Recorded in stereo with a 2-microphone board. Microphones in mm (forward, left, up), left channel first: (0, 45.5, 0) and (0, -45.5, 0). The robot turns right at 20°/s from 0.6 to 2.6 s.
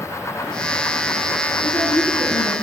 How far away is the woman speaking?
About 2.5 m.